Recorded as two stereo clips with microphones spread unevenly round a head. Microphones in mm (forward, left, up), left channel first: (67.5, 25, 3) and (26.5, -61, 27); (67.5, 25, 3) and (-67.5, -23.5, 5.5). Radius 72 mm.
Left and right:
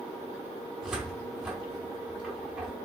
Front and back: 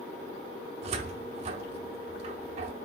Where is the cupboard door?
Straight behind, 0.9 m.